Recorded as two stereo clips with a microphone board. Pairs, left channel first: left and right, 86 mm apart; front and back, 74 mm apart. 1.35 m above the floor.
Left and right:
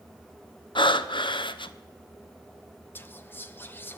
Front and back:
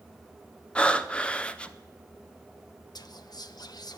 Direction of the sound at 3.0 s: 25° left.